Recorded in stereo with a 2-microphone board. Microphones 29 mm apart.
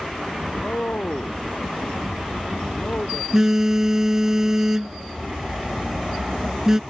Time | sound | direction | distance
0.5 | a man speaking | 75° left (ahead or behind) | ?
3.3 | a phone buzzing | 20° right (ahead or behind) | ?